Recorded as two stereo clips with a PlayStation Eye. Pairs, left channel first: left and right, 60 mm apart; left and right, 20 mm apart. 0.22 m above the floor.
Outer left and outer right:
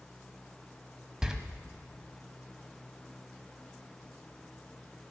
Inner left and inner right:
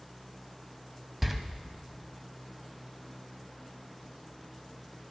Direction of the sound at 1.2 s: 10° right (ahead or behind).